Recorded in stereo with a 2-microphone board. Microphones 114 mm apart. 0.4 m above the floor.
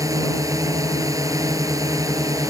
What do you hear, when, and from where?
0.0 s a drone: 30° right (ahead or behind)